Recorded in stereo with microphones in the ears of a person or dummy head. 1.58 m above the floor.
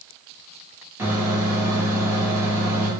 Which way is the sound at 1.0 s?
10° right (ahead or behind).